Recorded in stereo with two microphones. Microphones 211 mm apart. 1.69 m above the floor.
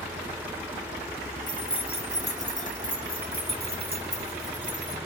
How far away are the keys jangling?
About 1.4 m.